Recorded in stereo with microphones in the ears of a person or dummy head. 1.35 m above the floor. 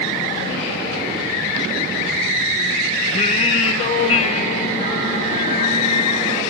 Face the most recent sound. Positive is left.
turn(degrees=40)  # may be behind; listen again after turning